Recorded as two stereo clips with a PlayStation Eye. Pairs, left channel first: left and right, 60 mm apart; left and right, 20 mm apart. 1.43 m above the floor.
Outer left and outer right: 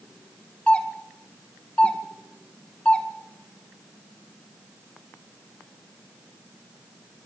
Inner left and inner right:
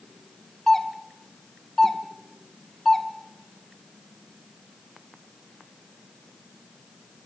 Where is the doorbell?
20° left (ahead or behind), 2 m.